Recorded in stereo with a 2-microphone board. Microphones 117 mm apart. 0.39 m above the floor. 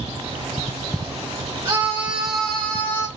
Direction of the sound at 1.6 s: 20° right (ahead or behind).